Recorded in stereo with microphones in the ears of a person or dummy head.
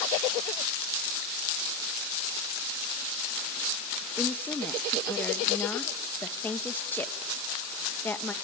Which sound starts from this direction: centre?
A woman speaking, at 4.2 s.